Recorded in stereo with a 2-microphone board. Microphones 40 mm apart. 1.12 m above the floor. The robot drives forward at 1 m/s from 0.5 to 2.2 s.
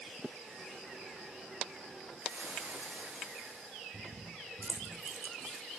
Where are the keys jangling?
70° right (ahead or behind), 1.8 m.